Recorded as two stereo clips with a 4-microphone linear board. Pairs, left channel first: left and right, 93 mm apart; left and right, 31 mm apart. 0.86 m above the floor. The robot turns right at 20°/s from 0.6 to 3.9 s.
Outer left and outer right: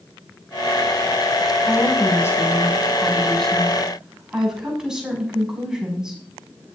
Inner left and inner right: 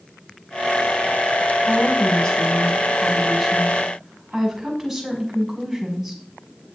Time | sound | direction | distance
1.7 | a woman speaking | 140° left | 6 m